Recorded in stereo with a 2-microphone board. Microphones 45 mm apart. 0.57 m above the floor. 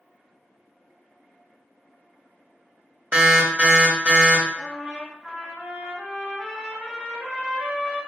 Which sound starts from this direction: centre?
A trumpet, at 4.5 s.